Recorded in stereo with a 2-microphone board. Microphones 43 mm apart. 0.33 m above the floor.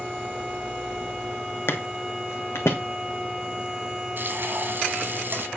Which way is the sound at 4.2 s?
50° right (ahead or behind).